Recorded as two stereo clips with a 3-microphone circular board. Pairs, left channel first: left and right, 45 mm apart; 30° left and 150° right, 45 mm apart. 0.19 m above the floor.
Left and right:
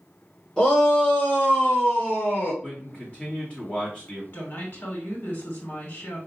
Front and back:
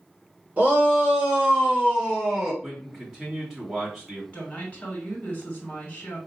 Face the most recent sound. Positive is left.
turn(degrees=80)